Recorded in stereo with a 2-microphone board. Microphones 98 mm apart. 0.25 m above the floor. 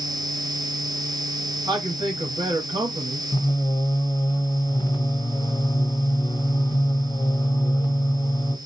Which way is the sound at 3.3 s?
40° left (ahead or behind).